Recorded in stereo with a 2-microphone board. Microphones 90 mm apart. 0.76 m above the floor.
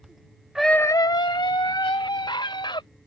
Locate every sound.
0.6 s a scream: 5° right (ahead or behind); by 2.8 s 60° left (ahead or behind)